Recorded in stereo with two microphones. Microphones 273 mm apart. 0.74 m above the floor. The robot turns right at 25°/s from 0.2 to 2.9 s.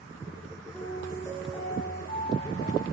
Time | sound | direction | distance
0.7 | a piano | 5° left | 9.5 m